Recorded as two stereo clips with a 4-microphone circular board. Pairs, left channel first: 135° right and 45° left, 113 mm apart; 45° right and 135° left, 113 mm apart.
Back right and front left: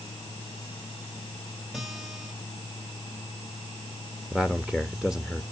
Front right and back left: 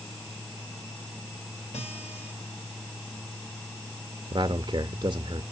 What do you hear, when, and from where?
1.7 s a guitar: 40° right, 3.5 m
4.3 s a man speaking: 130° left, 0.6 m